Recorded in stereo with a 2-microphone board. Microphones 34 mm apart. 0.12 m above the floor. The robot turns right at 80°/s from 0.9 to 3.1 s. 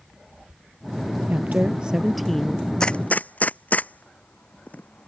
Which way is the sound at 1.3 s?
75° right.